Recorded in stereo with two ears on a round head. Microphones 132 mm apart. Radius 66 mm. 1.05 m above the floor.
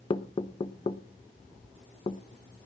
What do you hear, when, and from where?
0.1 s knocking: 35° left (ahead or behind), 1.0 m